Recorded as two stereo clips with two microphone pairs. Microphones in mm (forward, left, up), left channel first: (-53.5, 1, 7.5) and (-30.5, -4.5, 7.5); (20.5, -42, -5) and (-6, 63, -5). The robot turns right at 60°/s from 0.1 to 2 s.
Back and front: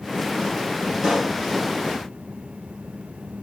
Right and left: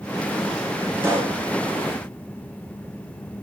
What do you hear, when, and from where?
1.0 s a pop: 35° left, 3 m; by 1.4 s 60° left, 3 m